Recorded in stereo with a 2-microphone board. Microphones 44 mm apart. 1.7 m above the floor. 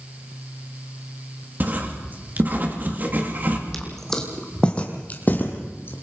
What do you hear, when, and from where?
1.6 s writing: 40° right (ahead or behind), 2.5 m
3.7 s footsteps: 5° left (ahead or behind), 3 m; by 5.9 s 50° left (ahead or behind), 3 m